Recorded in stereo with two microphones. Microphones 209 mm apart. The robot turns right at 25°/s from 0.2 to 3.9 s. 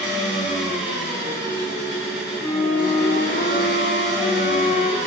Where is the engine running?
60° right, 2.0 m; by 5.1 s 35° left, 2.0 m.